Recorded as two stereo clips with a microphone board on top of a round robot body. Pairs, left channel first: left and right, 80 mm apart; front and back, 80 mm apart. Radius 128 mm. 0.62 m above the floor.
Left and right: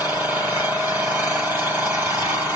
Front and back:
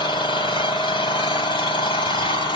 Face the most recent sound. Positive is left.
turn(degrees=-30)